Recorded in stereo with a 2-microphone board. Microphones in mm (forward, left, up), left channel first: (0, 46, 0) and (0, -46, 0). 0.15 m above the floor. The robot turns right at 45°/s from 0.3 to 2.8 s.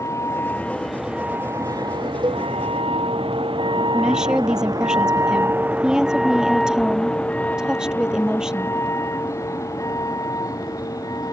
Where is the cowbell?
50° right (ahead or behind); by 2.5 s 55° right (ahead or behind).